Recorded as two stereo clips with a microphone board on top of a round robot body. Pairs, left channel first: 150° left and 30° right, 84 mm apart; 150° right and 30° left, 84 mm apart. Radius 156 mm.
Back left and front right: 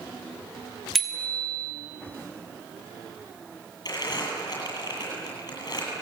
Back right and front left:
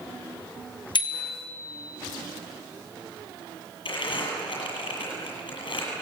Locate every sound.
0.9 s a bicycle bell: 120° right, 2.5 m
3.9 s crumpling: 165° right, 9 m